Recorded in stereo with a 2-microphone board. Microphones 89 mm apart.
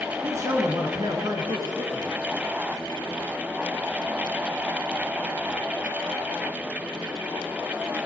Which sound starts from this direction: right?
A man speaking, at 0.2 s.